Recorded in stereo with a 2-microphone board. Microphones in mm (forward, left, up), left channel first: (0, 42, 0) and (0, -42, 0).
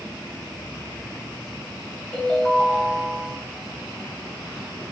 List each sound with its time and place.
2.1 s a ringtone: 15° left (ahead or behind), 3.5 m